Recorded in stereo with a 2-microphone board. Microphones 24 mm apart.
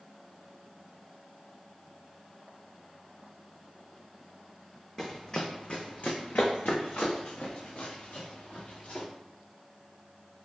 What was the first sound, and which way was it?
Running footsteps, 15° left (ahead or behind).